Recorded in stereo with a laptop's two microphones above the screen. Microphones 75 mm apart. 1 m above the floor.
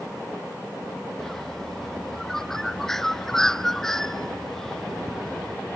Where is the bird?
5° left (ahead or behind).